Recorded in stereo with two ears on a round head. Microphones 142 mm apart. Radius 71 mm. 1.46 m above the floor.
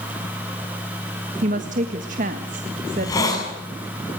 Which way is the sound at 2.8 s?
25° left (ahead or behind).